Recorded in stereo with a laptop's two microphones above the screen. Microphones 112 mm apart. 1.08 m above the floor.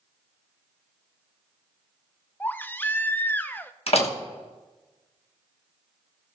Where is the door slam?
60° left (ahead or behind), 1.1 m.